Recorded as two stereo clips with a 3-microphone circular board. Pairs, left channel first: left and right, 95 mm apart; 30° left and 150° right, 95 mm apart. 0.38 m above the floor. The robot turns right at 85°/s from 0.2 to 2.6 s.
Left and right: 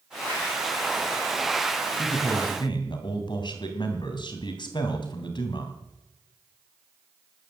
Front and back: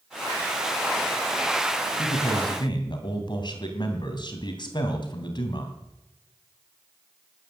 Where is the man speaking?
10° left, 3 m; by 5.8 s 60° left, 3 m.